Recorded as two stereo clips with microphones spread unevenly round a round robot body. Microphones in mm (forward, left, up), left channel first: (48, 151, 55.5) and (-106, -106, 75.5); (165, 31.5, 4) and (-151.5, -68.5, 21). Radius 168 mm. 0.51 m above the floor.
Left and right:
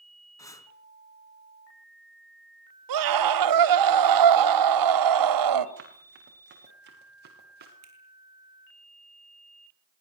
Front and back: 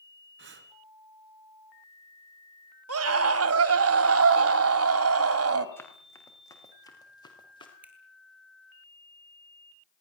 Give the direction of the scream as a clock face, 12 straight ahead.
4 o'clock.